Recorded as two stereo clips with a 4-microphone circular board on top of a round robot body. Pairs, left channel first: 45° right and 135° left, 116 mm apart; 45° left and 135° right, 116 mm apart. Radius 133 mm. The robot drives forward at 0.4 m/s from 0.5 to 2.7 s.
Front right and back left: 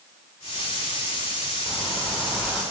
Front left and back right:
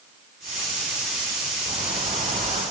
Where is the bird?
120° right, 5 m; by 2.6 s 125° right, 5.5 m.